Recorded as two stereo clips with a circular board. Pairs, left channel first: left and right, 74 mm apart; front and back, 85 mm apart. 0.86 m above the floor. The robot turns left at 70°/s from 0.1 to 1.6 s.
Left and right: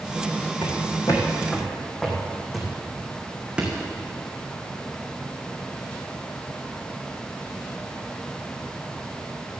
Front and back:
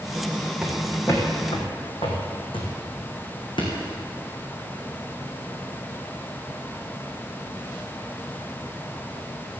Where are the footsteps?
95° left, 3 m; by 3.8 s 15° right, 3.5 m.